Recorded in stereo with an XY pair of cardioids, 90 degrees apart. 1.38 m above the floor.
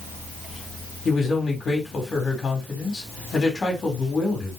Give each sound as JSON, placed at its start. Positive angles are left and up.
{"t": 1.1, "sound": "a man speaking", "azimuth_deg": 55, "distance_m": 4.0}